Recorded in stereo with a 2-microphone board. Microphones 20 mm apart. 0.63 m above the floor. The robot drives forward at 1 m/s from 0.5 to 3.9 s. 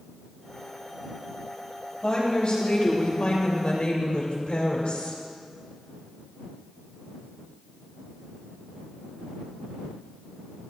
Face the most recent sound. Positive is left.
turn(degrees=70)  # may be behind; listen again after turning